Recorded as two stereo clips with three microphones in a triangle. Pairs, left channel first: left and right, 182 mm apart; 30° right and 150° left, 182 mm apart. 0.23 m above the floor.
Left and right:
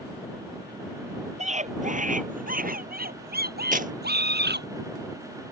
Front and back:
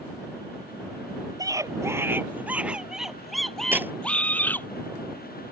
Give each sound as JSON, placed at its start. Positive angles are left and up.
{"t": 1.4, "sound": "a scream", "azimuth_deg": -140}
{"t": 3.7, "sound": "tearing paper", "azimuth_deg": -130}